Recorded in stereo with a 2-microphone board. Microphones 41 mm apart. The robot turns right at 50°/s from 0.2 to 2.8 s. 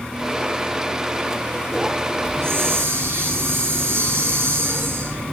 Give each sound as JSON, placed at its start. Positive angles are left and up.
{"t": 2.2, "sound": "a hiss", "side_deg": -80, "distance_m": 8.5}